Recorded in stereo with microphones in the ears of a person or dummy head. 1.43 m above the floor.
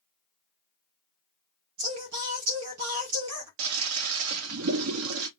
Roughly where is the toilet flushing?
Right.